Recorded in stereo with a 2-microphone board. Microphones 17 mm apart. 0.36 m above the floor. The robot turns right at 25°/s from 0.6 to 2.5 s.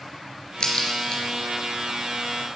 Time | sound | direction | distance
0.6 | a crack | 65° left (ahead or behind) | 3.5 m